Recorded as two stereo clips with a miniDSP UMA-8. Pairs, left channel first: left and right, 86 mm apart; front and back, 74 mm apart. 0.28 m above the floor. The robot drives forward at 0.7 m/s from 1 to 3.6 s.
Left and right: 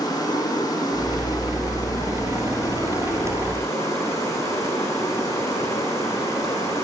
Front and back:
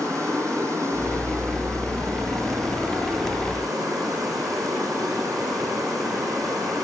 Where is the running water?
135° left, 7.5 m; by 6.8 s 145° left, 9 m.